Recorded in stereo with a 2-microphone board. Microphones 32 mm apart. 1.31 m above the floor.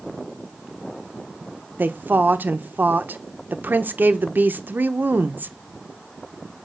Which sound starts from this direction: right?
A woman speaking, at 1.8 s.